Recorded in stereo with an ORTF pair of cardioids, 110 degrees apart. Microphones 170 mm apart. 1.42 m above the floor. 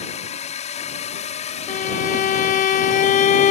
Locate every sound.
0.0 s a drone: 45° left
1.7 s a violin: 50° left